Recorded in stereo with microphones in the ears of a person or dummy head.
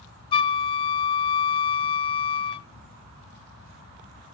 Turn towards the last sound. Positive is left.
turn(degrees=25)  # may be behind; listen again after turning